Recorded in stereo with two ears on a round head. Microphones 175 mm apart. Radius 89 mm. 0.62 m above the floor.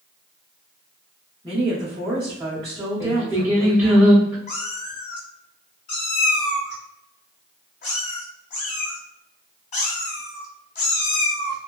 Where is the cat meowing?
40° left (ahead or behind), 1.1 m.